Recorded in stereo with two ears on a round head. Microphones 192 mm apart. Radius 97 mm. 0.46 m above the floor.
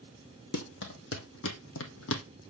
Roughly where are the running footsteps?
Left.